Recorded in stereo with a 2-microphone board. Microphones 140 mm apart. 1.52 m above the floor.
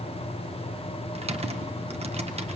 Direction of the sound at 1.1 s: 50° right (ahead or behind).